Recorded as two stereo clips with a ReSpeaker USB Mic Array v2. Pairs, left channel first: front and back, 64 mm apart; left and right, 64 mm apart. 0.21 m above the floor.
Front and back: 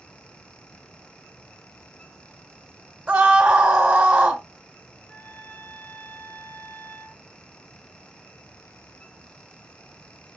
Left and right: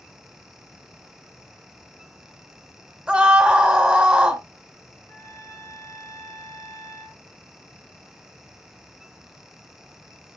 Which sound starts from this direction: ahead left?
A trumpet, at 5.1 s.